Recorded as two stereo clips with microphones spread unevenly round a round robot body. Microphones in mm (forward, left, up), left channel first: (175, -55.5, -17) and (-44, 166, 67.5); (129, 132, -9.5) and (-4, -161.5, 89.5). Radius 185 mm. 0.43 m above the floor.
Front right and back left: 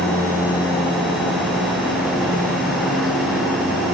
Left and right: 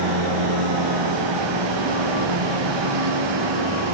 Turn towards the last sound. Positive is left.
turn(degrees=-135)